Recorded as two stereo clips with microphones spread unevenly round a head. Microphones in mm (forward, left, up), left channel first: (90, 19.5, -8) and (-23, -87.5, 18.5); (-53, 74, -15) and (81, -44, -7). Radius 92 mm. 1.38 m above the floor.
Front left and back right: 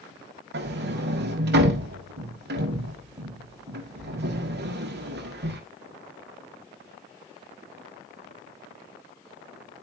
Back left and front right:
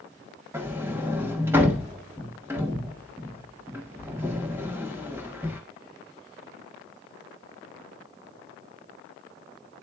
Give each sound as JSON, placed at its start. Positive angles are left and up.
{"t": 0.5, "sound": "a sliding door", "azimuth_deg": -120, "distance_m": 1.7}